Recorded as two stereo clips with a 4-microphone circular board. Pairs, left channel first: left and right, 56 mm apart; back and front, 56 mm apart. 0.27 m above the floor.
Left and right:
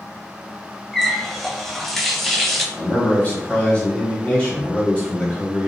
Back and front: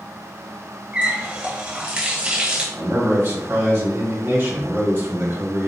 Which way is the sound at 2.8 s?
40° left.